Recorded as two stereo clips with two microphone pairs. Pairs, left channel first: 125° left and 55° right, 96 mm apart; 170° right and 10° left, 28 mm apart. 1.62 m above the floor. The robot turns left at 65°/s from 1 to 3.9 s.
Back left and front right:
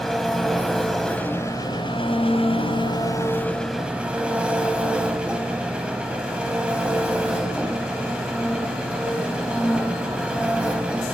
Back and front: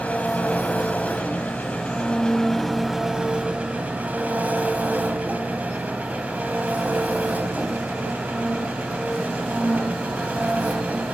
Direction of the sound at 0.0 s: 145° right.